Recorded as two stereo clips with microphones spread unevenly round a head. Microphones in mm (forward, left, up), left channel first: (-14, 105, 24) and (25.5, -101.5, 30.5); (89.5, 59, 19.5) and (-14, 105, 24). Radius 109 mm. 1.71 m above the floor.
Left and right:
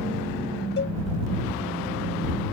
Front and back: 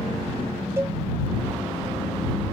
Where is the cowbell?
105° left.